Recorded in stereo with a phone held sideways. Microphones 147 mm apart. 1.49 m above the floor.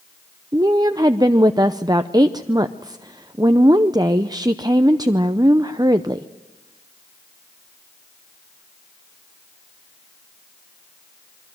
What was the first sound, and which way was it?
A woman speaking, 25° right (ahead or behind).